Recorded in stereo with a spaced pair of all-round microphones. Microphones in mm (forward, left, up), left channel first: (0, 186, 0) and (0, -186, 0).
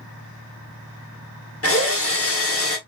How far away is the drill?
About 1.1 m.